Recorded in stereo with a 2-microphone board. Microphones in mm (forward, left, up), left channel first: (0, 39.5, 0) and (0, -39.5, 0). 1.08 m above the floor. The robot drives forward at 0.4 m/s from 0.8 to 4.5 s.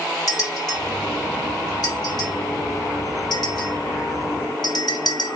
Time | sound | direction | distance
0.3 | a bell | 55° left (ahead or behind) | 2.5 m